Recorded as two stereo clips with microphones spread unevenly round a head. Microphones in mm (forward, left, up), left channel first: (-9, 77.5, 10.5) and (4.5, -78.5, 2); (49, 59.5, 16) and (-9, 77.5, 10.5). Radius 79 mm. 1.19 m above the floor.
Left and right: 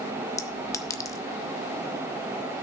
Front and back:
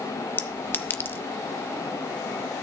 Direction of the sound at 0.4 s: 25° left.